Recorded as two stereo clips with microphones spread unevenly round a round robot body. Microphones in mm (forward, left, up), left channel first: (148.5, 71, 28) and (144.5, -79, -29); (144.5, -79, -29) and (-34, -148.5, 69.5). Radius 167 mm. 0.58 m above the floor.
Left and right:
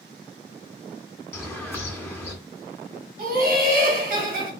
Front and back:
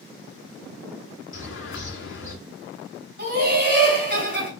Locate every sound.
1.3 s a bird: 10° left, 2 m
3.2 s laughter: 115° right, 3 m